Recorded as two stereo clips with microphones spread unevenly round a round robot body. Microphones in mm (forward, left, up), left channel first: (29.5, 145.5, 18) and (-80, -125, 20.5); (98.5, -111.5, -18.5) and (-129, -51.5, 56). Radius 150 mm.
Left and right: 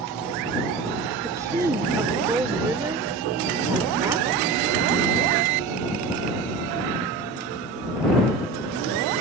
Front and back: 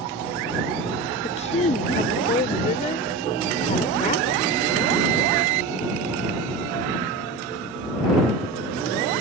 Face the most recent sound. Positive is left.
turn(degrees=-35)